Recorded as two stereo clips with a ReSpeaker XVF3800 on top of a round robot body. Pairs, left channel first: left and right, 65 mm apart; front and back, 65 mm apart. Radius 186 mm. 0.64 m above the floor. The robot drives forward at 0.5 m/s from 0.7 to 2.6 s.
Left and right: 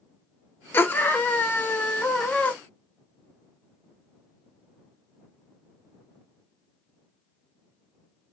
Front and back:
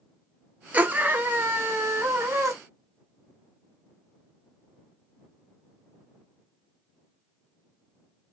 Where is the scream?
125° left, 1.4 m; by 2.5 s 155° left, 1.9 m.